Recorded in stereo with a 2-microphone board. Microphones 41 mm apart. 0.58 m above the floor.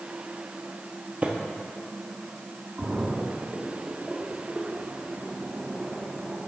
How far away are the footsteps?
About 0.9 m.